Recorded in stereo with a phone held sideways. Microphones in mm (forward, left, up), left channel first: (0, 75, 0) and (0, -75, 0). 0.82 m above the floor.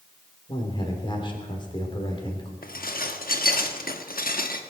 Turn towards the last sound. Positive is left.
turn(degrees=75)  # may be behind; listen again after turning